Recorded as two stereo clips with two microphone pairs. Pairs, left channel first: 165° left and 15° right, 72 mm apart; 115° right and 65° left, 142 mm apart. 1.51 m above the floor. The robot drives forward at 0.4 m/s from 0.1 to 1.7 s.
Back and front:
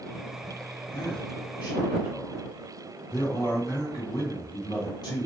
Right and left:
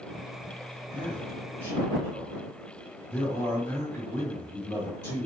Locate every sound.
0.9 s a man speaking: 165° left, 1.9 m; by 5.3 s 170° left, 2 m